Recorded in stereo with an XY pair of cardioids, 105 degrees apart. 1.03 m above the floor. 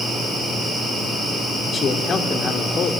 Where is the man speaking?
45° left, 2.5 m.